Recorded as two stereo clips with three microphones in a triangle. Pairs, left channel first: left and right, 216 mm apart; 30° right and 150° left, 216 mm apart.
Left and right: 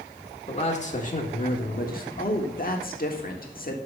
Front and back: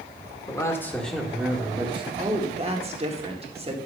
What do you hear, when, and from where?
0.5 s a man speaking: 40° left, 1.9 m; by 2.1 s 100° left, 1.6 m
2.2 s a woman speaking: 105° left, 1.6 m